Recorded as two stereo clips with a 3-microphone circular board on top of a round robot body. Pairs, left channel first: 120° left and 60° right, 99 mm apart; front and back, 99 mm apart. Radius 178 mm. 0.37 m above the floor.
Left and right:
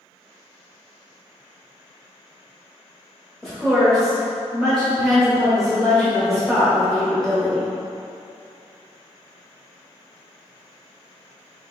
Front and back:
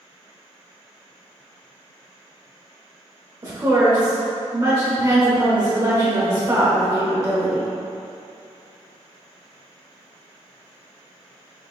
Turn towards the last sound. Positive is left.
turn(degrees=-150)